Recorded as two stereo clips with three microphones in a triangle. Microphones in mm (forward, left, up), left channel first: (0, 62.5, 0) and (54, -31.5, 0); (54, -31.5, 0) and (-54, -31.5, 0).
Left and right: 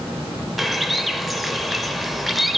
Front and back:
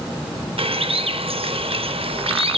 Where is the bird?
150° right, 0.5 m.